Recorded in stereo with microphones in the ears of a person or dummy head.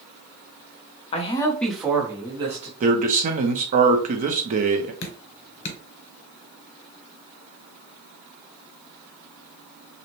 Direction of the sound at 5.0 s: 50° left (ahead or behind).